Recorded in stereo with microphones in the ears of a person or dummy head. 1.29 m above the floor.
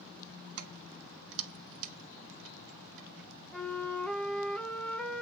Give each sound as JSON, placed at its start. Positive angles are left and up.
{"t": 0.6, "sound": "keys jangling", "side_deg": -70, "distance_m": 1.4}
{"t": 3.5, "sound": "a flute", "side_deg": 5, "distance_m": 0.8}